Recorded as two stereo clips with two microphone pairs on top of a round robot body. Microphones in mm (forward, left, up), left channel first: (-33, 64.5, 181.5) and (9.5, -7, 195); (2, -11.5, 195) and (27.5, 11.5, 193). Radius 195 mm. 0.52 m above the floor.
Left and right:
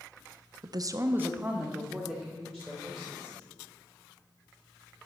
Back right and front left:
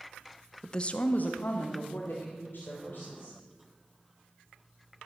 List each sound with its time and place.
0.6 s a woman speaking: 65° right, 0.8 m; by 3.4 s 160° right, 3.5 m